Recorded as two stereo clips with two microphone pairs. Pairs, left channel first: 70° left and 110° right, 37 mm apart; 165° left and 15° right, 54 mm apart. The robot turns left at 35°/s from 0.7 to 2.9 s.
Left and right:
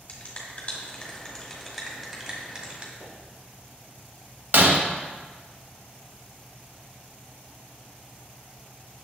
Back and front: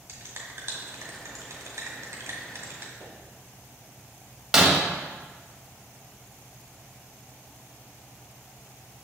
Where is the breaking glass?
95° right, 1.0 m.